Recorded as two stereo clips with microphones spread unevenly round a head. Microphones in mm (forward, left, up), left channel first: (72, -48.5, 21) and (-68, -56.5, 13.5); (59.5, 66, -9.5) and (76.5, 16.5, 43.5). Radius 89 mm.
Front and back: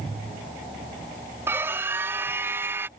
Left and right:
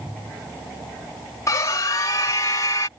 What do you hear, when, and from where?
1.5 s a scream: 105° left